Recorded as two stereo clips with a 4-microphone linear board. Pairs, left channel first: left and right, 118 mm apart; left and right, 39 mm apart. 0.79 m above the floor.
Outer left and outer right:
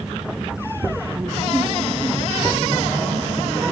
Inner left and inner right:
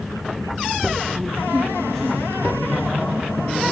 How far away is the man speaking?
About 7 m.